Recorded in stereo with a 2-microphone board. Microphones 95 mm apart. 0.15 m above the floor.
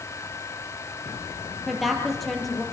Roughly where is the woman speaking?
Centre.